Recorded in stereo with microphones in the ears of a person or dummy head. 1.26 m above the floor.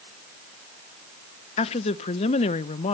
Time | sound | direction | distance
1.6 | a woman speaking | 35° left (ahead or behind) | 0.8 m